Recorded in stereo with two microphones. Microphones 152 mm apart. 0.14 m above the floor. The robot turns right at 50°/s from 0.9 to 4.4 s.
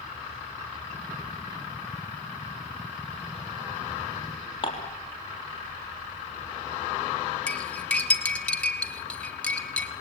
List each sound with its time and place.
4.6 s dishes clattering: 35° left (ahead or behind), 3.5 m
7.5 s cutlery clinking: 10° left (ahead or behind), 1.8 m